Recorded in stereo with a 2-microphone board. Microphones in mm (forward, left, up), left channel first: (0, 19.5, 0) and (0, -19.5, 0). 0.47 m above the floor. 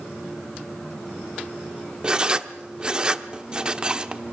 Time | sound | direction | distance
2.0 | writing | 20° right (ahead or behind) | 0.7 m